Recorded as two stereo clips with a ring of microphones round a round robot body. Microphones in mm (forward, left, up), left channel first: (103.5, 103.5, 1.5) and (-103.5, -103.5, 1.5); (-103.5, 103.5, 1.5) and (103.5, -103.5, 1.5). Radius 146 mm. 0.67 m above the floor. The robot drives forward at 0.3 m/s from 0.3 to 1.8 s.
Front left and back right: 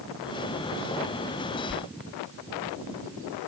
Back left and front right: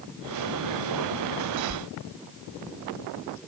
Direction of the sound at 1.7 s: 110° left.